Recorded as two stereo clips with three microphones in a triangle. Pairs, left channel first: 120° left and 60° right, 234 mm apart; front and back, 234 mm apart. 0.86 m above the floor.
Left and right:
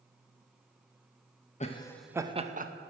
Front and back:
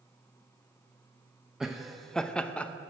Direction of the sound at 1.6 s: 95° left.